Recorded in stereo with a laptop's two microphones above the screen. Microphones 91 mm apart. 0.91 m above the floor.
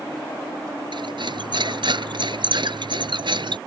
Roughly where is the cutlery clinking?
Right.